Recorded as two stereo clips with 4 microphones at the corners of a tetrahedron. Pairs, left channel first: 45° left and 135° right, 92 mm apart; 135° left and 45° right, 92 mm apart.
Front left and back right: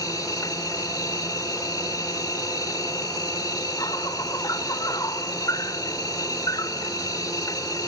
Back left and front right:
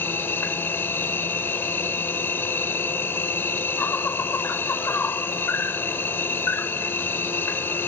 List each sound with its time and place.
0.0 s an insect: 75° left